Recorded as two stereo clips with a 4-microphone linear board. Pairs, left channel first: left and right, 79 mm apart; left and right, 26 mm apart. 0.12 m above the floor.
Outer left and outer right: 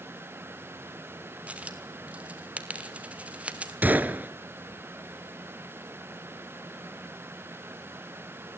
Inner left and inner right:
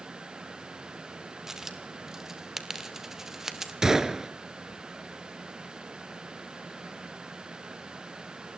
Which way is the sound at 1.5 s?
15° right (ahead or behind).